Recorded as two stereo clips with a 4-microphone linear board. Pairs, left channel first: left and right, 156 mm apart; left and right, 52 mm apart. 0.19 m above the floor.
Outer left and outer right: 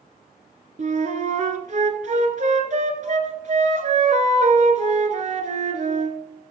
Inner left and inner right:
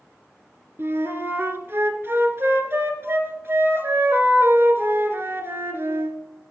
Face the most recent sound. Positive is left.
turn(degrees=-50)  # may be behind; listen again after turning